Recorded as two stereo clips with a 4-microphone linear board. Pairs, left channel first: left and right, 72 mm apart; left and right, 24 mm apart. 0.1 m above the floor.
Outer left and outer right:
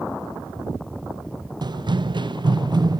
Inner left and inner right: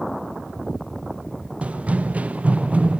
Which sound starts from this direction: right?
Running footsteps, at 1.6 s.